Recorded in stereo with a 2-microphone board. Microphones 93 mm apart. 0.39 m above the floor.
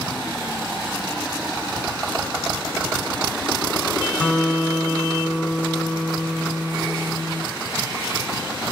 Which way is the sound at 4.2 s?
15° left (ahead or behind).